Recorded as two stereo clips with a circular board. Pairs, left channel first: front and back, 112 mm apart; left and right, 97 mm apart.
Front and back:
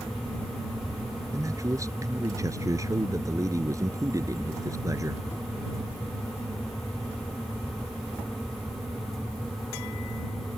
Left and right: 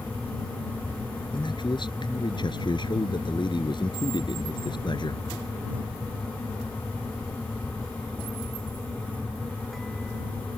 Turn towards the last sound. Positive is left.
turn(degrees=120)